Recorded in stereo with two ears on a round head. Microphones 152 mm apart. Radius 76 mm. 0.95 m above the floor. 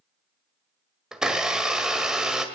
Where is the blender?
5° right (ahead or behind), 1.8 m.